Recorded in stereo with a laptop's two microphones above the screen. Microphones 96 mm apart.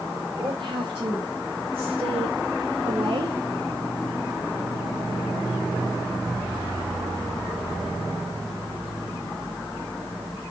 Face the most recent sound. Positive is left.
turn(degrees=-50)  # may be behind; listen again after turning